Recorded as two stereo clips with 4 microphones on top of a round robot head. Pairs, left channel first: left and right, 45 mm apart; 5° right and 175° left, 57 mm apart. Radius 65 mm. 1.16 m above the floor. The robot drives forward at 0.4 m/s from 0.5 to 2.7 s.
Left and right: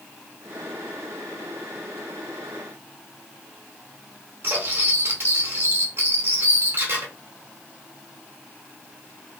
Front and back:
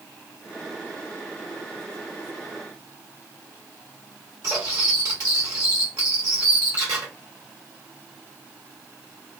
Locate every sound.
4.4 s cutlery clinking: 130° right, 1.2 m